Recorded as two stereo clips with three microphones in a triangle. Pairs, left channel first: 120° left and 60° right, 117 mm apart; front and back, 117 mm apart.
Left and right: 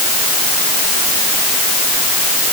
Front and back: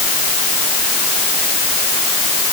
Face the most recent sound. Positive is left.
No sound to turn to.